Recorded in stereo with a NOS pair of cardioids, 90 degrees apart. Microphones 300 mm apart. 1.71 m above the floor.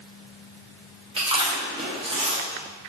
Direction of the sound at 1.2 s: 20° right.